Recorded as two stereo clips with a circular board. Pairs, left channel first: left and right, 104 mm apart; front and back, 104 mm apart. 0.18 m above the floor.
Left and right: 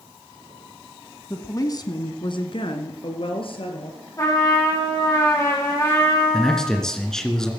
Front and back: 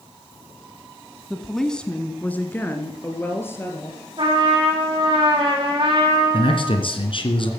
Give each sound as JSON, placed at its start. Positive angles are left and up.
{"t": 1.3, "sound": "a woman speaking", "azimuth_deg": 95, "distance_m": 1.1}
{"t": 4.2, "sound": "a trumpet", "azimuth_deg": 145, "distance_m": 5.5}
{"t": 6.3, "sound": "a man speaking", "azimuth_deg": 5, "distance_m": 2.5}